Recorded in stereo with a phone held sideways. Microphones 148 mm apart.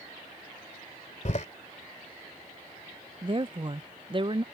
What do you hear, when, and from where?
1.2 s a door slam: 55° left (ahead or behind)
3.2 s a woman speaking: 35° right (ahead or behind)